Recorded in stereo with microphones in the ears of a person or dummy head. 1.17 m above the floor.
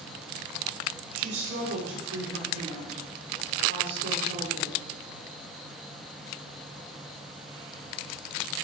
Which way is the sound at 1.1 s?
75° right (ahead or behind).